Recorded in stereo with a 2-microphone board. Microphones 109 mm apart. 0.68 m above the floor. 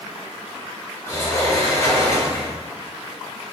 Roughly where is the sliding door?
Left.